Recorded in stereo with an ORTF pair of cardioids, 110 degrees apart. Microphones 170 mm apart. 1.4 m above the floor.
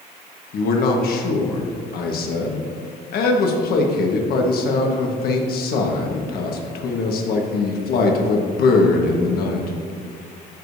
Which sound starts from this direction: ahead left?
A man speaking, at 0.5 s.